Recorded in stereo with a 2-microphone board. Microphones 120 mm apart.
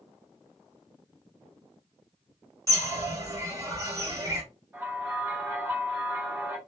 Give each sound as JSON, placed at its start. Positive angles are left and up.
{"t": 2.7, "sound": "a bird", "side_deg": -25, "distance_m": 1.4}
{"t": 4.7, "sound": "a bell", "side_deg": -20, "distance_m": 3.0}